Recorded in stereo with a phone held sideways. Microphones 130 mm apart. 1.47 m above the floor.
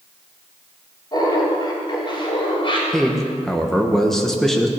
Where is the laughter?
40° left (ahead or behind), 3.5 m; by 2.8 s 50° left (ahead or behind), 3.5 m.